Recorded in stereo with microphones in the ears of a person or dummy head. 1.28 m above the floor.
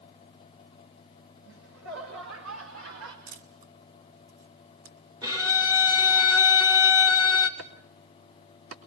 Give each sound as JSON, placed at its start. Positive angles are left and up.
{"t": 1.4, "sound": "laughter", "side_deg": -80, "distance_m": 4.5}
{"t": 3.3, "sound": "a camera shutter", "side_deg": -45, "distance_m": 2.5}
{"t": 5.2, "sound": "a violin", "side_deg": -10, "distance_m": 1.0}
{"t": 7.6, "sound": "chopping", "side_deg": -80, "distance_m": 3.0}